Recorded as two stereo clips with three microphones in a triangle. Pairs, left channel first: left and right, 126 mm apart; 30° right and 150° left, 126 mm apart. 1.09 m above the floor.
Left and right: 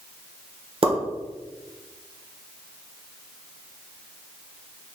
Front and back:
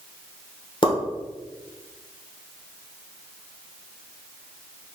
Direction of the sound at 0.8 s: 65° right.